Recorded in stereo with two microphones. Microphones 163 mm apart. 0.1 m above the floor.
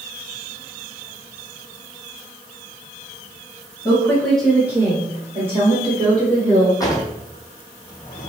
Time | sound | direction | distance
3.9 | a woman speaking | 25° left (ahead or behind) | 1.5 m
6.8 | a drawer | 20° left (ahead or behind) | 1.0 m